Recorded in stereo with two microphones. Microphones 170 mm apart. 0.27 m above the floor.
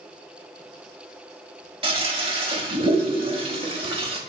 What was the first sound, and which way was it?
A toilet flushing, 35° right (ahead or behind).